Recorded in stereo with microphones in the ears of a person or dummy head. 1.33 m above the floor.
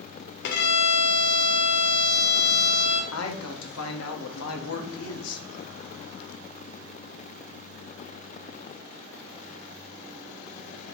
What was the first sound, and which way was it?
A violin, 55° left (ahead or behind).